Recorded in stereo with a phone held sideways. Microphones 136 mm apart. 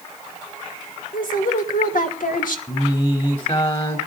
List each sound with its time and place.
1.1 s a woman speaking: 80° left, 2.5 m
2.7 s singing: 40° left (ahead or behind), 3 m